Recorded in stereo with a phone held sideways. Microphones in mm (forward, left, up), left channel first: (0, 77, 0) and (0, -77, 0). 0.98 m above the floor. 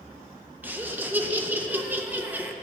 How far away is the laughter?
About 0.9 m.